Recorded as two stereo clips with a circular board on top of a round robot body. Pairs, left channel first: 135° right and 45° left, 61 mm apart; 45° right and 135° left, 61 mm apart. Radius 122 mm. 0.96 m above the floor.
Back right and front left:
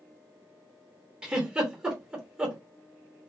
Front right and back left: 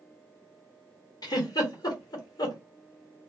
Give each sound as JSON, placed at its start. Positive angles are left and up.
{"t": 1.2, "sound": "a giggle", "azimuth_deg": -30, "distance_m": 1.4}